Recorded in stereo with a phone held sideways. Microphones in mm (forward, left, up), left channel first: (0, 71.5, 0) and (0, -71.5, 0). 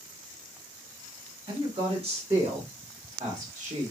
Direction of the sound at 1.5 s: 35° right (ahead or behind).